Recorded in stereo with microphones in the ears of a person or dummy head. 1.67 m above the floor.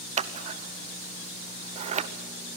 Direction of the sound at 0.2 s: 30° right (ahead or behind).